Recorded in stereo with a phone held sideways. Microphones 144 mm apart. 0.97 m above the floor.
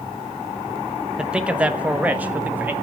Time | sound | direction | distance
1.2 | a man speaking | 5° right (ahead or behind) | 1.1 m